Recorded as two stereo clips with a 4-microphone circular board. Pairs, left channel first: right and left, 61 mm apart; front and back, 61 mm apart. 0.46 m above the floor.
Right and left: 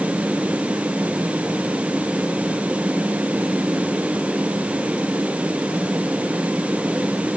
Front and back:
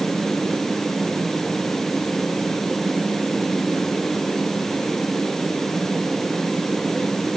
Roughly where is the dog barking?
No dog barking in this recording.